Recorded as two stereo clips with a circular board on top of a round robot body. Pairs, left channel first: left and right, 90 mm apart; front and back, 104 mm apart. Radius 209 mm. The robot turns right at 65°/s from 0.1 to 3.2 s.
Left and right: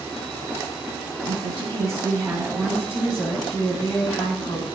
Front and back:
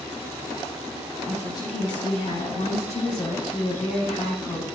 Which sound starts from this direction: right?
A woman speaking, at 1.2 s.